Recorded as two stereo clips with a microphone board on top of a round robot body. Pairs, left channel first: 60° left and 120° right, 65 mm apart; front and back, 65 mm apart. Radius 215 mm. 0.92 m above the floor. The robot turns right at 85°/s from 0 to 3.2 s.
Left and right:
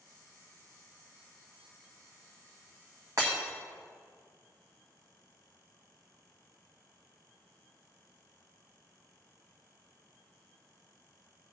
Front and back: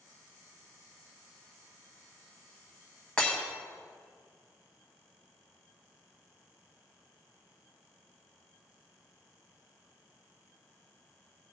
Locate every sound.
3.2 s breaking glass: 75° right, 1.4 m